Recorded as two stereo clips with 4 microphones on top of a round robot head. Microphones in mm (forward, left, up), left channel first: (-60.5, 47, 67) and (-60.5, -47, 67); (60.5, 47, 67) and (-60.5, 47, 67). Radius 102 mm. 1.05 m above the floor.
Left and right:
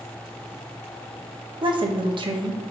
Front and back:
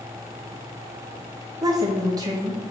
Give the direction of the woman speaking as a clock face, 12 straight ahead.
4 o'clock.